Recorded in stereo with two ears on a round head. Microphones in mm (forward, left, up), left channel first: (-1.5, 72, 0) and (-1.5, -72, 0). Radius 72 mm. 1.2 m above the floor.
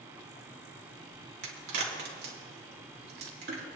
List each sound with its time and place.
1.4 s a crack: 70° right (ahead or behind), 3 m